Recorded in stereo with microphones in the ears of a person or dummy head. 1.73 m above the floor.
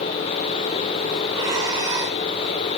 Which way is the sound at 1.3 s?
15° right (ahead or behind).